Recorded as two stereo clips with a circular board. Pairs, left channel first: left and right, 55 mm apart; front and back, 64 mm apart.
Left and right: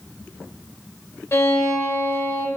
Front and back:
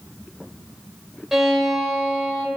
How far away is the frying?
I don't hear frying.